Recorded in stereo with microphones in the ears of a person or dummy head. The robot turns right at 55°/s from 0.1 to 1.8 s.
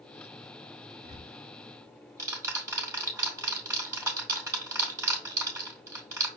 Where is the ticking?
45° right (ahead or behind), 1.7 m; by 6.3 s 15° right (ahead or behind), 1.7 m.